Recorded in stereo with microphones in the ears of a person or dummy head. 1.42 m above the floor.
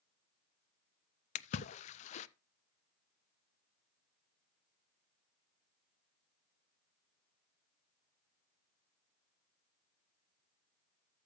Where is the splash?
40° left (ahead or behind), 0.6 m.